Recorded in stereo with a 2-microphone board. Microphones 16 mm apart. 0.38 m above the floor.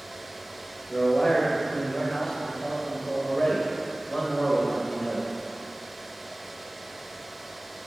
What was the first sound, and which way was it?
A man speaking, 50° left (ahead or behind).